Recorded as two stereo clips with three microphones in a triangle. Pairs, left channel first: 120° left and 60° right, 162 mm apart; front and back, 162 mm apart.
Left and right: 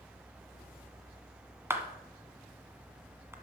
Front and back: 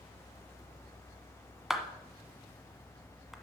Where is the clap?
95° right, 1.4 m.